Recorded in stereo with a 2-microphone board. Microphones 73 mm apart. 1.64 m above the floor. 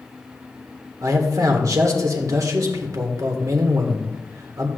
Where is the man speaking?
50° right (ahead or behind), 1.7 m.